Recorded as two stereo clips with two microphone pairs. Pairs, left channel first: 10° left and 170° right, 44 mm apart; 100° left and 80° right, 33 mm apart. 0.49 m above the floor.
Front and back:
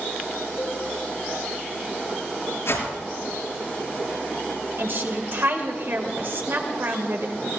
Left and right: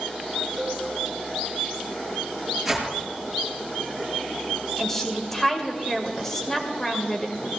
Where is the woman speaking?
Straight behind, 2 m.